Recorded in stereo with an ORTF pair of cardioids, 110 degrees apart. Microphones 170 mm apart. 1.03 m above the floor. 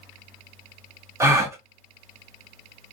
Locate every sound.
1.2 s a gasp: 15° right, 0.7 m